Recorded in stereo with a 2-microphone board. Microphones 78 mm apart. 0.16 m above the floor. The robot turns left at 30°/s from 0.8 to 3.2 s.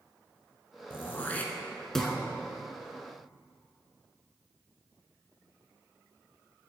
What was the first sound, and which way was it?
Throat clearing, 30° left (ahead or behind).